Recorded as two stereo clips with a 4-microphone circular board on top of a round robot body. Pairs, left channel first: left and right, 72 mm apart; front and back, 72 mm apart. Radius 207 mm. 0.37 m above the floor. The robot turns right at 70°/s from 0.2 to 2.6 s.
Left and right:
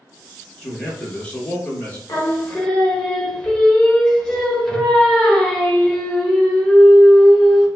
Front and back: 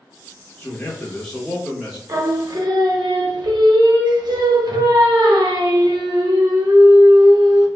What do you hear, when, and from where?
0.6 s a man speaking: 15° left, 1.3 m; by 2.0 s 115° left, 1.3 m
2.1 s singing: 130° left, 0.8 m; by 7.7 s 170° left, 0.8 m